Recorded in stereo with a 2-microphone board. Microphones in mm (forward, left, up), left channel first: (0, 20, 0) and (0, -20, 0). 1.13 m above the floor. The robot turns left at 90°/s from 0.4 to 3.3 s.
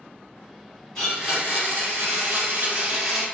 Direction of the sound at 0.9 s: 10° left.